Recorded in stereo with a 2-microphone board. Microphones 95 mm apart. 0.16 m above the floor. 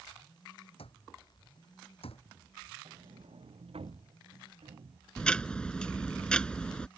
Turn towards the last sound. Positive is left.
turn(degrees=10)  # may be behind; listen again after turning